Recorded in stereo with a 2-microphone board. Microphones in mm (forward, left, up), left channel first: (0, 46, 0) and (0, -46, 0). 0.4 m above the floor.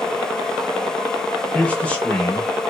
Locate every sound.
1.5 s a man speaking: 15° left (ahead or behind), 0.8 m